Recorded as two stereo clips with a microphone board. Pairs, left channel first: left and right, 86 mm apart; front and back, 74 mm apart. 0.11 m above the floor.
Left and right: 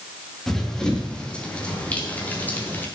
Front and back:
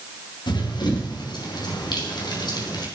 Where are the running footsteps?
5° left, 4.5 m; by 2.9 s 20° left, 5 m.